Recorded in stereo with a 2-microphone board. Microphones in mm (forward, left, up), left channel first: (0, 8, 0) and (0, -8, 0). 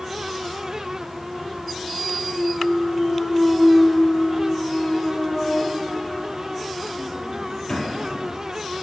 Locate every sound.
2.3 s a clunk: 45° left (ahead or behind), 6 m